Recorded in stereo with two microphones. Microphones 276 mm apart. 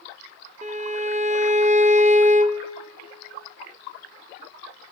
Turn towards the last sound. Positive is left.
turn(degrees=-25)  # may be behind; listen again after turning